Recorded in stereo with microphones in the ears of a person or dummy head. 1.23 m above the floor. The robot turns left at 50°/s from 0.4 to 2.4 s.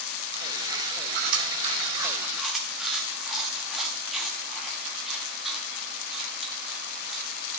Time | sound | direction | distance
1.1 | chewing | 50° right (ahead or behind) | 1.0 m